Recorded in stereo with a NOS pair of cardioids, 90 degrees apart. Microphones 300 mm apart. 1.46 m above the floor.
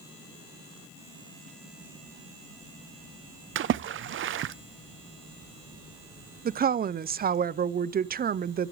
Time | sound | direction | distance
3.5 | a splash | 45° right | 0.6 m
6.5 | a woman speaking | 30° right | 0.5 m